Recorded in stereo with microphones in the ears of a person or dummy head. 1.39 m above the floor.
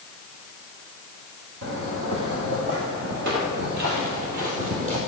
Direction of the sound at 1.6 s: 60° right (ahead or behind).